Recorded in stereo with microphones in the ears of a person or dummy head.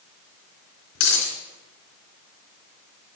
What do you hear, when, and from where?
0.9 s a dropped coin: 70° left (ahead or behind), 3.5 m